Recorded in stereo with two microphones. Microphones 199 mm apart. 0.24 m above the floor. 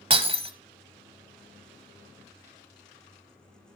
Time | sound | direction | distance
0.1 | breaking glass | 30° right (ahead or behind) | 0.8 m